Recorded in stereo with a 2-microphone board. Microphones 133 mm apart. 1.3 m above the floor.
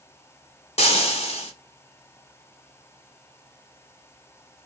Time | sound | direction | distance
0.8 | frying | 55° left (ahead or behind) | 0.9 m